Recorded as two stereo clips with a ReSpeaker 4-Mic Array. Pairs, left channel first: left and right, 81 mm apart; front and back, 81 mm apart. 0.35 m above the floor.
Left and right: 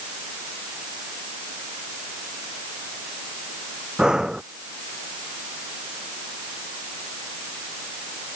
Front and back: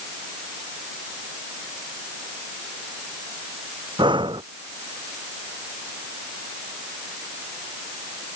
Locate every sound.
4.0 s breathing: 170° right